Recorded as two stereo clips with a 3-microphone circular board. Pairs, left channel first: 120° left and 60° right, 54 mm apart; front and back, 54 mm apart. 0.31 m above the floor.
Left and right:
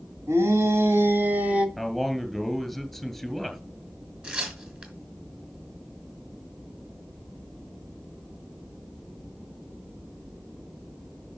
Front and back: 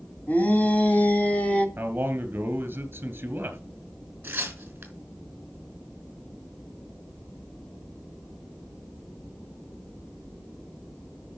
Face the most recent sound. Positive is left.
turn(degrees=-125)